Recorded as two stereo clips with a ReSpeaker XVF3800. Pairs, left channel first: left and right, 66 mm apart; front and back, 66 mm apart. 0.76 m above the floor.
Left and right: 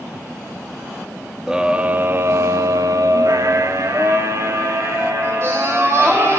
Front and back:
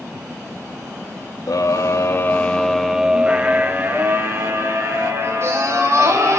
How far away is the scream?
About 0.9 m.